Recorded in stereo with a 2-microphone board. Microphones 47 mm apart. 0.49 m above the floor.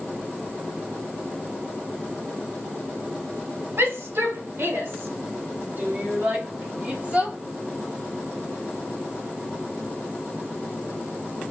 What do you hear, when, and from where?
3.8 s a shout: 65° right (ahead or behind), 2 m; by 7.3 s 25° right (ahead or behind), 2 m